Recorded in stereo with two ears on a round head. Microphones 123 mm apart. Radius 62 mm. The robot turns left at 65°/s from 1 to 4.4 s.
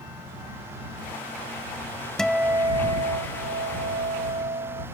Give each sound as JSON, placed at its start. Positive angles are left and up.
{"t": 2.2, "sound": "a guitar", "azimuth_deg": 5}